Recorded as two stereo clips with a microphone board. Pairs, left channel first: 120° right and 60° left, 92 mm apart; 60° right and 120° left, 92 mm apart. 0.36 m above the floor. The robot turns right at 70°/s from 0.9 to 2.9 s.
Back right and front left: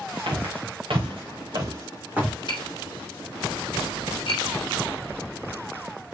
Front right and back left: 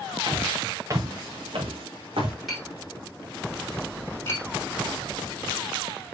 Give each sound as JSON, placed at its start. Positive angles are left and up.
{"t": 0.3, "sound": "footsteps", "azimuth_deg": 75, "distance_m": 3.0}
{"t": 2.5, "sound": "tapping", "azimuth_deg": -150, "distance_m": 3.5}